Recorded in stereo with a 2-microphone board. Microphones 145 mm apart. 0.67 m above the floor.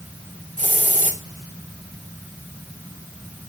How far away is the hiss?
About 2.5 m.